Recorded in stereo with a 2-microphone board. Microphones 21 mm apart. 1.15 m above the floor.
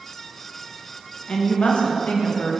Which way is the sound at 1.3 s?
60° left (ahead or behind).